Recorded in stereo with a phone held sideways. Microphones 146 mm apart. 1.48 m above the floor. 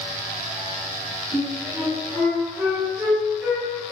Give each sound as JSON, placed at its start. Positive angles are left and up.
{"t": 1.3, "sound": "a flute", "side_deg": -20, "distance_m": 1.6}